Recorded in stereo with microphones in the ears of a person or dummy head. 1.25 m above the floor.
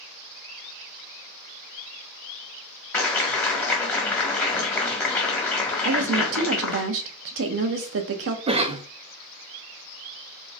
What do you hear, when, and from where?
2.9 s a clap: 15° left (ahead or behind), 1.0 m
5.8 s a woman speaking: 75° right (ahead or behind), 0.8 m
8.5 s a cough: 25° right (ahead or behind), 0.5 m